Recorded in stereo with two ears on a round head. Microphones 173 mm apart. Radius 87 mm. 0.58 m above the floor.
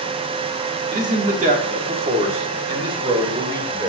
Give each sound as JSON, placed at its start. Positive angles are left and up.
{"t": 0.9, "sound": "a man speaking", "side_deg": -45, "distance_m": 1.3}